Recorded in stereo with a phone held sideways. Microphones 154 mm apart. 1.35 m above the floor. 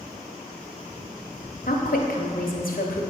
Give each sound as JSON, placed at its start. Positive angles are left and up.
{"t": 1.7, "sound": "a woman speaking", "side_deg": 70, "distance_m": 0.9}